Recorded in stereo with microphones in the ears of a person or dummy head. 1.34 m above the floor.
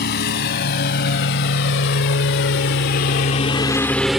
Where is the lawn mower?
55° left (ahead or behind); by 4.2 s centre (ahead or behind).